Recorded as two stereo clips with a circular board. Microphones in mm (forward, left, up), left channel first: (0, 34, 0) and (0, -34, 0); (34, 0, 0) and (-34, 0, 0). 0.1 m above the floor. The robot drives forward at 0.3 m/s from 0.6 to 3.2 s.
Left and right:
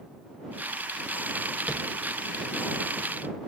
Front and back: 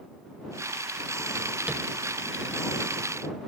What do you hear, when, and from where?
1.7 s tapping: 135° right, 0.6 m; by 1.8 s 145° right, 0.7 m